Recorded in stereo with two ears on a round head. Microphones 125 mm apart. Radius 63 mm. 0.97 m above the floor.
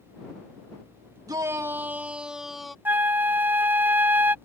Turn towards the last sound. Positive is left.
turn(degrees=-15)  # may be behind; listen again after turning